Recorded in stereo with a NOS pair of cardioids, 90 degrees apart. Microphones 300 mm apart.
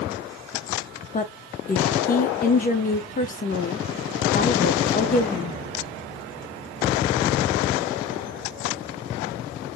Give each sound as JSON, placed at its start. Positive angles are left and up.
{"t": 1.1, "sound": "a woman speaking", "azimuth_deg": 30, "distance_m": 0.7}